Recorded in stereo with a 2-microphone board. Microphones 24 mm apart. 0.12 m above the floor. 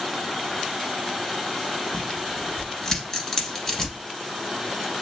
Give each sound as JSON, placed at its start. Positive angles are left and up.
{"t": 1.9, "sound": "tearing paper", "side_deg": 15, "distance_m": 1.5}